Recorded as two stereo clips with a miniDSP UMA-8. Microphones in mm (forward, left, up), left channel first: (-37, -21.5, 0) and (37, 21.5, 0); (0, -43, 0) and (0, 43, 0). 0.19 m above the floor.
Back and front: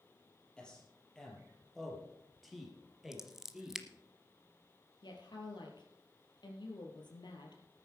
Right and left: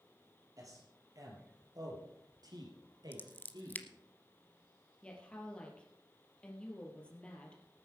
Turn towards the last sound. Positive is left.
turn(degrees=-165)